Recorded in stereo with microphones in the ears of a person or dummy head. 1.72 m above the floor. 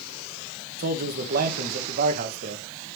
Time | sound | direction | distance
0.8 | a man speaking | 45° right (ahead or behind) | 1.8 m